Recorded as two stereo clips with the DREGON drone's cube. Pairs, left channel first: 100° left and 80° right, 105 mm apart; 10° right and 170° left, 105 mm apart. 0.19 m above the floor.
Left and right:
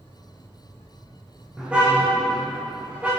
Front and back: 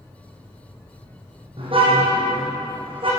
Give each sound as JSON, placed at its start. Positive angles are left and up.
{"t": 1.6, "sound": "a car horn", "azimuth_deg": -160, "distance_m": 5.0}